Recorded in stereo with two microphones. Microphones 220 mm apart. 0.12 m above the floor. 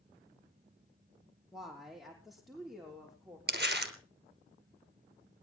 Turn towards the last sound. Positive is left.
turn(degrees=-50)  # may be behind; listen again after turning